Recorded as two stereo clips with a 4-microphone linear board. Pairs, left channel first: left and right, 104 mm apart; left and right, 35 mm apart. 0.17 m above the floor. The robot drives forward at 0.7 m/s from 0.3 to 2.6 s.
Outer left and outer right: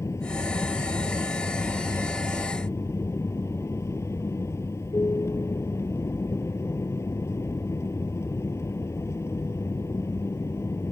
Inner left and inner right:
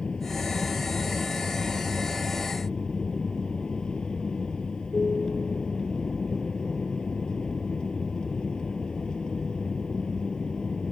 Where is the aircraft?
30° left (ahead or behind); by 10.9 s 25° left (ahead or behind).